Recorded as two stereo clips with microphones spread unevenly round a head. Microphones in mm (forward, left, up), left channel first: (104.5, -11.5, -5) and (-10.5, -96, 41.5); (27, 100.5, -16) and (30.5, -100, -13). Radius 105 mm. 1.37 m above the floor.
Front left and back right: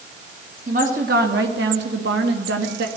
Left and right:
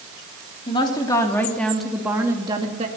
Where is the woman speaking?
160° left, 3.5 m; by 2.9 s 150° right, 2.5 m.